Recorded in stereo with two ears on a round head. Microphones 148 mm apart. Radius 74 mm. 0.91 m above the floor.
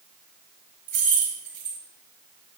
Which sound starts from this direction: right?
Keys jangling, at 0.9 s.